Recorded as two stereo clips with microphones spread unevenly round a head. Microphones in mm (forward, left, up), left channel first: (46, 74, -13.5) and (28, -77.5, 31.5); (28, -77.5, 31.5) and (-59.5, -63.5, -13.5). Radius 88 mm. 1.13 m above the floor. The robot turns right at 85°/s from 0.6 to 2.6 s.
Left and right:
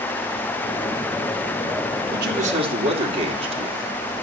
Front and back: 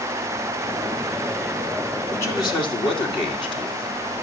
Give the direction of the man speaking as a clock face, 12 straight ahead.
3 o'clock.